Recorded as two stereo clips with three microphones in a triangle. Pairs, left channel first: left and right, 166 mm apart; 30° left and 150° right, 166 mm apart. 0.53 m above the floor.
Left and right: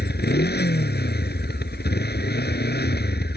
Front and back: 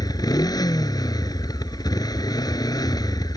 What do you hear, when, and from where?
0.0 s a motorcycle: 95° left